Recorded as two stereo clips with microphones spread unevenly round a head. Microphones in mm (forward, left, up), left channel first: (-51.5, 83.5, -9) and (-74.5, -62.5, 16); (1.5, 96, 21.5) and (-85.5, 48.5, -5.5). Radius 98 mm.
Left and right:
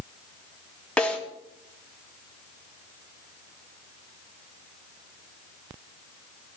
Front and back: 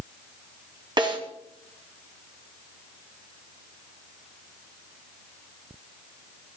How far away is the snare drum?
About 5 m.